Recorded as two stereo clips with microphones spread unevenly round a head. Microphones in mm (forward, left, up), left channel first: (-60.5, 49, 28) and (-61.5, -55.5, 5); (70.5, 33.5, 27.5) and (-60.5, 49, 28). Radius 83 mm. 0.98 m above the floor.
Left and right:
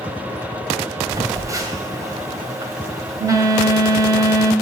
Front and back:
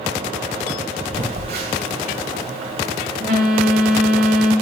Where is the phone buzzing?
150° right, 1.9 m.